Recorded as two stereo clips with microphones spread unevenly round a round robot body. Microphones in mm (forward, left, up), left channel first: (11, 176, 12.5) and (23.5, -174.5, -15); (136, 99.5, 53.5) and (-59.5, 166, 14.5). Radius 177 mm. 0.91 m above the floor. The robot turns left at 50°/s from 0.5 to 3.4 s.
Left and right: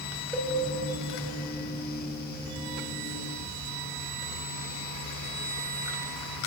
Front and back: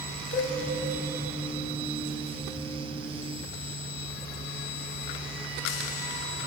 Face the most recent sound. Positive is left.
turn(degrees=-135)